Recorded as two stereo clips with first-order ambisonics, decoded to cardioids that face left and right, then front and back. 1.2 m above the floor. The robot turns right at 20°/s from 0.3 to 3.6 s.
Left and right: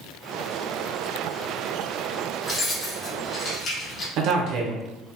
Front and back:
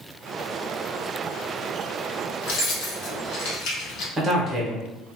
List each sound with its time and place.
2.4 s keys jangling: 15° left, 0.8 m; by 4.1 s 35° left, 0.8 m
4.2 s a man speaking: 110° right, 0.8 m